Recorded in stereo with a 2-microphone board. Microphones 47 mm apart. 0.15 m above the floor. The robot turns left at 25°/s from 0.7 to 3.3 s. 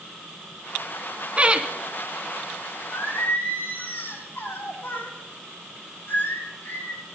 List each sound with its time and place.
1.4 s laughter: 30° right (ahead or behind), 1.3 m; by 1.7 s 25° right (ahead or behind), 1.3 m
2.9 s singing: 65° left (ahead or behind), 5.5 m; by 7.0 s 60° left (ahead or behind), 5.5 m